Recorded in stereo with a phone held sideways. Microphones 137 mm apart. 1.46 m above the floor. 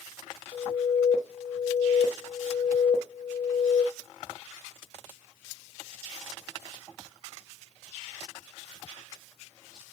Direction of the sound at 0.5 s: 45° left (ahead or behind).